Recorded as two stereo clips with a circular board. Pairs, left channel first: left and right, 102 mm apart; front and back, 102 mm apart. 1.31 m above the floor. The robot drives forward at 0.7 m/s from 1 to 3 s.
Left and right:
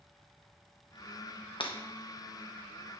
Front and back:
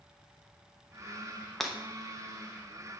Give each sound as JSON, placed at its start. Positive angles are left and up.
{"t": 1.6, "sound": "breaking glass", "azimuth_deg": 90, "distance_m": 0.8}